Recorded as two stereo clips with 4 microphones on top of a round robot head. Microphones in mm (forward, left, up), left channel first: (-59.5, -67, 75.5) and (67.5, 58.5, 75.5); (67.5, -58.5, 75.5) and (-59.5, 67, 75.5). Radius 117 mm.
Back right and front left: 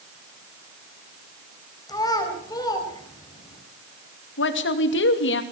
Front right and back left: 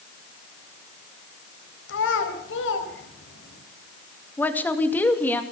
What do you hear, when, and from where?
1.9 s a child speaking: 65° right, 4.5 m
4.4 s a woman speaking: 125° right, 2.5 m